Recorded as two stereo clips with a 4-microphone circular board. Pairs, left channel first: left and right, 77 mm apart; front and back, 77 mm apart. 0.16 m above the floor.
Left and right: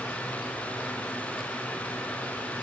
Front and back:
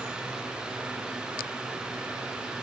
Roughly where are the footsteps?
No footsteps in this recording.